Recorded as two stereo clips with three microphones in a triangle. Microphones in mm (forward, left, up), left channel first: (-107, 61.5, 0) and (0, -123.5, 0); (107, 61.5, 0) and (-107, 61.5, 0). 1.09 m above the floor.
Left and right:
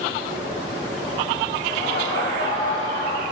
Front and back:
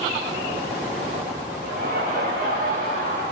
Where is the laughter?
140° left, 4 m; by 3.2 s 135° left, 6 m.